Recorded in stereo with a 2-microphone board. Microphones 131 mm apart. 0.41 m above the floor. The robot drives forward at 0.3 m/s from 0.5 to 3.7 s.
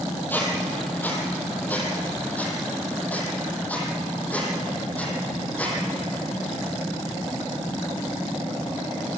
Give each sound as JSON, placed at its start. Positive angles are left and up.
{"t": 0.3, "sound": "a squeak", "side_deg": 15, "distance_m": 3.5}